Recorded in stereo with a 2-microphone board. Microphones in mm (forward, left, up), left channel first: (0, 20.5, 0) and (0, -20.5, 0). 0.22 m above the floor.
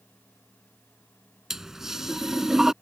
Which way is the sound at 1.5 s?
10° right (ahead or behind).